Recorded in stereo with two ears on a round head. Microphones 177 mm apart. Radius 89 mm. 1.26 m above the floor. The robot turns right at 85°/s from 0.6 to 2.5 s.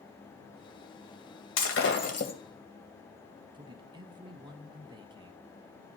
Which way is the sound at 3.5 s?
25° right (ahead or behind).